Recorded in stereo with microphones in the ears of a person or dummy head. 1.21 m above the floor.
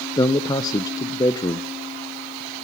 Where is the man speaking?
15° left (ahead or behind), 0.6 m.